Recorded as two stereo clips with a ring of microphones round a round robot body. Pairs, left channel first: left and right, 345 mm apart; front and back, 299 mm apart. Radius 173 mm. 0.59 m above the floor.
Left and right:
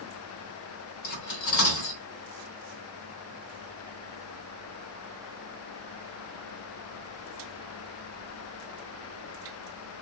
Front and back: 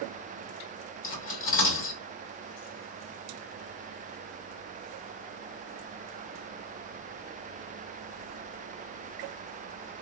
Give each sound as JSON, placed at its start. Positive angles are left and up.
{"t": 1.0, "sound": "cutlery clinking", "azimuth_deg": 50, "distance_m": 1.3}